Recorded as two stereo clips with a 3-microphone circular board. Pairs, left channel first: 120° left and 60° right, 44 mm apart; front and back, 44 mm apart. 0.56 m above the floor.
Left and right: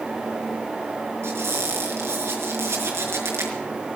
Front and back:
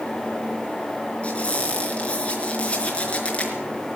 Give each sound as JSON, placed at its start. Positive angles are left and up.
{"t": 1.2, "sound": "a squeak", "azimuth_deg": -60, "distance_m": 4.5}